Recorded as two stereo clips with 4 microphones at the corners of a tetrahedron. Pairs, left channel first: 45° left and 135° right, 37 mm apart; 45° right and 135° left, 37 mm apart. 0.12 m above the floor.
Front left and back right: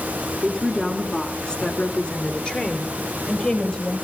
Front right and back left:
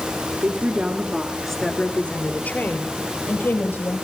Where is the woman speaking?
130° left, 2 m; by 4.0 s 20° right, 4.5 m.